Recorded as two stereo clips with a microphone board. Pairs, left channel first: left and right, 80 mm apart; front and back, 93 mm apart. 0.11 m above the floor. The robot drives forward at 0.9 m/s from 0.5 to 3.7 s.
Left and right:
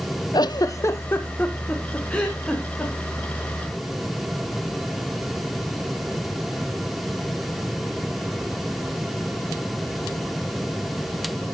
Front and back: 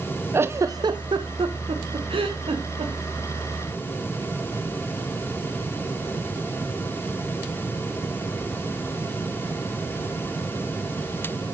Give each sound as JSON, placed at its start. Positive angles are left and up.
{"t": 0.3, "sound": "a giggle", "azimuth_deg": 120, "distance_m": 0.5}